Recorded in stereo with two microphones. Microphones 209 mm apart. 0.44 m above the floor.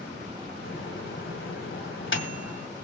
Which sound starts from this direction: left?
A microwave, at 0.7 s.